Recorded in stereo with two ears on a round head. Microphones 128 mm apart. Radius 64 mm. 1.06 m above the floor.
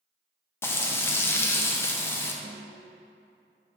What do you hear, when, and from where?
0.6 s frying: 15° left (ahead or behind), 0.7 m
2.4 s a snare drum: 50° right (ahead or behind), 1.0 m